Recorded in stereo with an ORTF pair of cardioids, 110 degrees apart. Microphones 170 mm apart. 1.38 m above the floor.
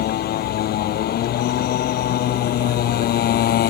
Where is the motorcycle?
65° left.